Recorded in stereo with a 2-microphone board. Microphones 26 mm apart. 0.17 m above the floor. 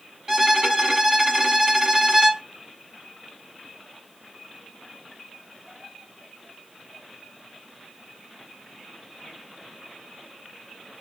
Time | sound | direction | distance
0.3 | a violin | 20° right (ahead or behind) | 0.9 m